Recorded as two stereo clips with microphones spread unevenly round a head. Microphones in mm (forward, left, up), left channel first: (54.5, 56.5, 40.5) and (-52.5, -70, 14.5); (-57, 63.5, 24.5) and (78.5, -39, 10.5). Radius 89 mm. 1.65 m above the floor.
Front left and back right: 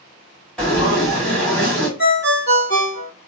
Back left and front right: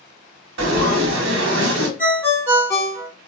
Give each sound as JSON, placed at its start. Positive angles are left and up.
{"t": 0.6, "sound": "frying", "azimuth_deg": -30, "distance_m": 1.0}
{"t": 2.0, "sound": "a ringtone", "azimuth_deg": 65, "distance_m": 2.5}